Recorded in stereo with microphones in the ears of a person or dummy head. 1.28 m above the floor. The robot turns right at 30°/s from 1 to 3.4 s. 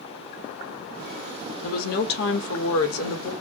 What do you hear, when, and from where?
1.6 s a woman speaking: 45° left, 1.6 m; by 3.3 s 95° left, 1.6 m